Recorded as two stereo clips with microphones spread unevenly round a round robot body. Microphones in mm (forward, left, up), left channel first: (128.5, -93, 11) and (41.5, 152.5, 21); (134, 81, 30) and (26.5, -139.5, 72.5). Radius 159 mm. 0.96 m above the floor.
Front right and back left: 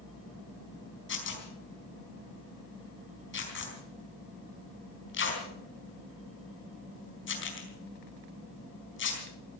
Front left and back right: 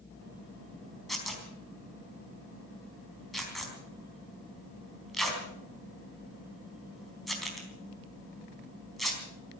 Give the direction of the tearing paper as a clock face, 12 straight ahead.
1 o'clock.